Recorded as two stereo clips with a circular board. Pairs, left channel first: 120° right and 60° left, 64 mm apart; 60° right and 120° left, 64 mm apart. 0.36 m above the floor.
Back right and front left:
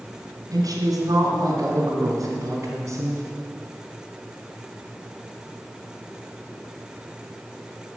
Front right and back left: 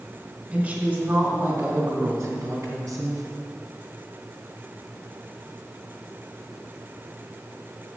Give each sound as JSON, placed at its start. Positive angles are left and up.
{"t": 0.5, "sound": "a woman speaking", "azimuth_deg": 55, "distance_m": 3.0}